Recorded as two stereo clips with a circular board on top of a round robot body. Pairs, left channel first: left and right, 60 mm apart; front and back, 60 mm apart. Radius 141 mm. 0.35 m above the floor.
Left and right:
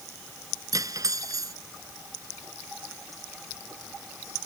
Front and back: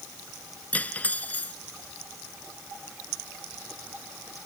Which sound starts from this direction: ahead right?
Cutlery clinking, at 0.7 s.